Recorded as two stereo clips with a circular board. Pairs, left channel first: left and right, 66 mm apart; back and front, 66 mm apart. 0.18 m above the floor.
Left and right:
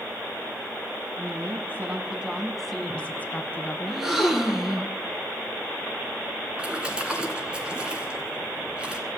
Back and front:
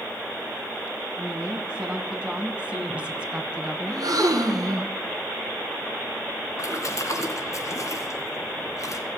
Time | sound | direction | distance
1.2 | a woman speaking | 75° right | 2.0 m
3.9 | a gasp | 10° right | 1.6 m
6.6 | a splash | 165° right | 2.5 m